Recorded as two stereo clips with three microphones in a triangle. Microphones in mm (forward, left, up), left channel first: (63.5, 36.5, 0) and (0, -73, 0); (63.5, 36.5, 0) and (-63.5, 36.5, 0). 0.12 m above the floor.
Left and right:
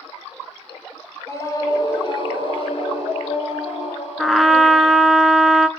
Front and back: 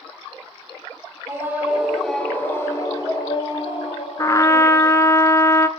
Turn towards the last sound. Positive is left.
turn(degrees=-30)